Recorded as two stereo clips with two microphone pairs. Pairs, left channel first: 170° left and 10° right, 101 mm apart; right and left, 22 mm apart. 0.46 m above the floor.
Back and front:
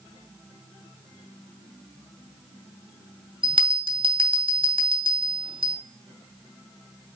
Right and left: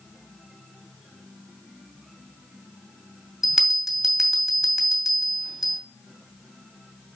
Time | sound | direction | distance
3.4 | a bell | 20° left | 2.5 m